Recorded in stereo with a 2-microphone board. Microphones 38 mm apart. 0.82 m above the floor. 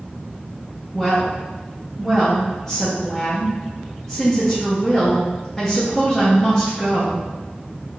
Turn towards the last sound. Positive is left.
turn(degrees=10)  # may be behind; listen again after turning